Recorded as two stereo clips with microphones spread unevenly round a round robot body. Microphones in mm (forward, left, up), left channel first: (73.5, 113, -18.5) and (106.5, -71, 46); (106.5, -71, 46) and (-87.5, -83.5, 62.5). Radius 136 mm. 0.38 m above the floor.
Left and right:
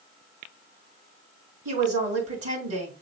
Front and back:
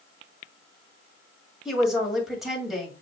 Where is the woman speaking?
85° right, 2 m.